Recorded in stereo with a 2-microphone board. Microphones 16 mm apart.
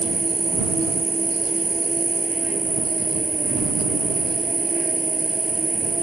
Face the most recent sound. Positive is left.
turn(degrees=-60)  # may be behind; listen again after turning